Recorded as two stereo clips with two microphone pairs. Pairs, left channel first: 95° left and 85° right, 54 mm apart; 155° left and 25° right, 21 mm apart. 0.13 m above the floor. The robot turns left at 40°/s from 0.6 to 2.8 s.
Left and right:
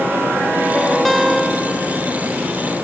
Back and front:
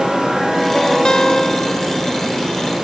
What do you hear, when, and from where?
1.1 s a guitar: straight behind, 1.6 m; by 2.4 s 125° left, 1.6 m